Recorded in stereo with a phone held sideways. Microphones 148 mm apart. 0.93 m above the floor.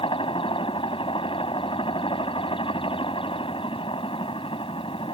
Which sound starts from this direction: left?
A helicopter, at 0.0 s.